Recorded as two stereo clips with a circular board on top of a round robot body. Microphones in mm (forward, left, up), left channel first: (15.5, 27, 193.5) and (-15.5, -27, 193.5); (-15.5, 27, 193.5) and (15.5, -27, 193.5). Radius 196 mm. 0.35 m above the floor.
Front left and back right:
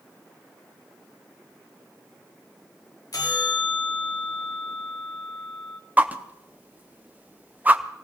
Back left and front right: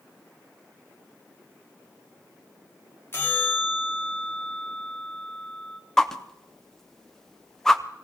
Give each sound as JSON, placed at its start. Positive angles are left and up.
{"t": 3.1, "sound": "a bell", "azimuth_deg": 75, "distance_m": 2.5}
{"t": 6.0, "sound": "a whoosh", "azimuth_deg": -160, "distance_m": 1.2}